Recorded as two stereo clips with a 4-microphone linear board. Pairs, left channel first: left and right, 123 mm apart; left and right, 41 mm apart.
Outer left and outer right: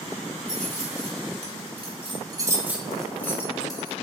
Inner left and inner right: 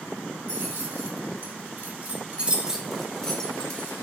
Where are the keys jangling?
75° right (ahead or behind), 1.5 m; by 3.9 s 35° left (ahead or behind), 1.0 m.